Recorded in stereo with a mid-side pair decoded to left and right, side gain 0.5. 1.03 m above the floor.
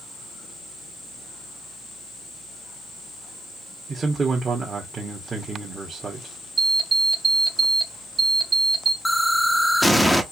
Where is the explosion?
Straight ahead, 0.9 m.